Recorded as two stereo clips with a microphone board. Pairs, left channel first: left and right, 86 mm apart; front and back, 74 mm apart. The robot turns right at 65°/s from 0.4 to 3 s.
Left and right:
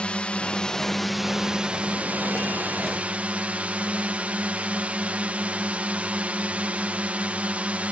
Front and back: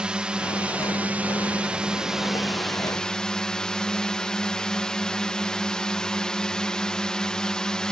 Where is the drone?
135° left; by 7.9 s 55° right.